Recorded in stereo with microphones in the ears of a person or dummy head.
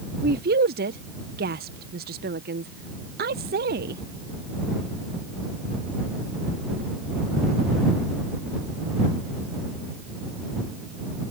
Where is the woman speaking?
40° right (ahead or behind).